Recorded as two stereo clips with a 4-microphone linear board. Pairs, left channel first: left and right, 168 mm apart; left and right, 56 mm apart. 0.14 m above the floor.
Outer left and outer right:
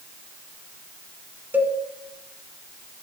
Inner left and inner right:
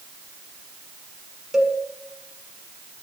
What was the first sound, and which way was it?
A cowbell, 10° right (ahead or behind).